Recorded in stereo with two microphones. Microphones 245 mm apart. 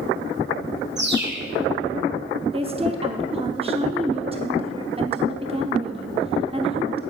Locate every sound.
1.0 s a bird: 45° right (ahead or behind), 1.7 m
2.5 s a woman speaking: 25° right (ahead or behind), 0.8 m